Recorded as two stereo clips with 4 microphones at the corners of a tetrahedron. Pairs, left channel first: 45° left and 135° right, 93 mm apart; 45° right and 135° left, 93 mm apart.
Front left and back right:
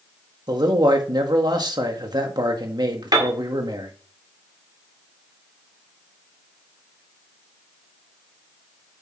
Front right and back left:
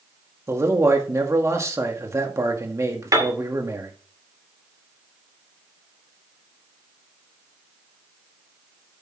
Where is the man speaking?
170° right, 1.8 m.